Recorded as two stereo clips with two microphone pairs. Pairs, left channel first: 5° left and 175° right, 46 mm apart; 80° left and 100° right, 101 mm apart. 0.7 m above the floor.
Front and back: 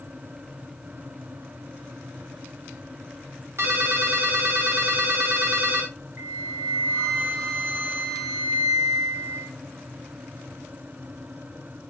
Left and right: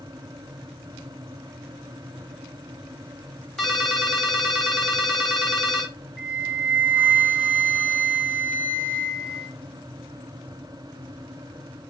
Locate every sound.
3.6 s a ringtone: 170° left, 0.8 m
6.2 s a flute: 175° left, 1.4 m